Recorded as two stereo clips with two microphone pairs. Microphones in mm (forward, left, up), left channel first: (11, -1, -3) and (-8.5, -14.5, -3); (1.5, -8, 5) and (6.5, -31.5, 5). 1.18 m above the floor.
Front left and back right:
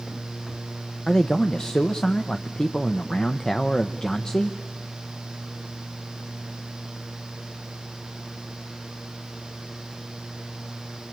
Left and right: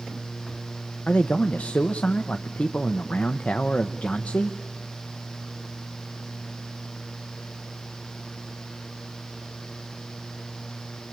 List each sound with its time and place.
1.1 s a man speaking: 90° left, 0.8 m